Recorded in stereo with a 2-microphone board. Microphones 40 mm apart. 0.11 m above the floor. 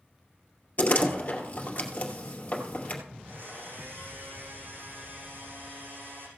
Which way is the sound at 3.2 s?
60° right (ahead or behind).